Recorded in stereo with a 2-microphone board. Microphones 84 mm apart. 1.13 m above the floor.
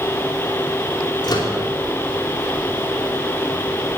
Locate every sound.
1.2 s a microwave: 50° left (ahead or behind), 2.5 m